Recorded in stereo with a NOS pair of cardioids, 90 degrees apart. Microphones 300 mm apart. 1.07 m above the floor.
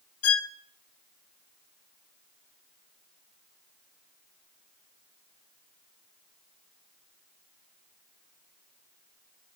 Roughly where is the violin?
Ahead left.